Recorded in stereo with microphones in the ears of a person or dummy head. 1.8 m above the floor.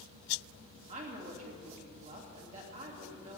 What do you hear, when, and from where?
0.9 s a woman speaking: 40° right (ahead or behind), 3 m